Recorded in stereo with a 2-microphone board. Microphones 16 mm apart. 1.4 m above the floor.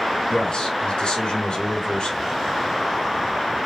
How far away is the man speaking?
About 2 m.